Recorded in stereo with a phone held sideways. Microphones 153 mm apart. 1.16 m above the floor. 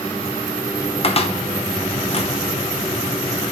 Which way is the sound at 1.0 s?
40° left (ahead or behind).